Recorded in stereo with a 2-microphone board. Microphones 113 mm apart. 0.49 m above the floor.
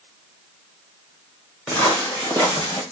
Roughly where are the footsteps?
Centre.